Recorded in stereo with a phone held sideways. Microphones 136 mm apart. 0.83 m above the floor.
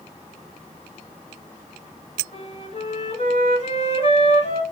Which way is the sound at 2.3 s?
50° left (ahead or behind).